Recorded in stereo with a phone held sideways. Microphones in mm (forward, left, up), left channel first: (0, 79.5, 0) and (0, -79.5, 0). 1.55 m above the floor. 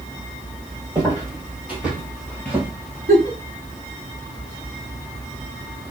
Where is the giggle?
65° right (ahead or behind), 1.0 m.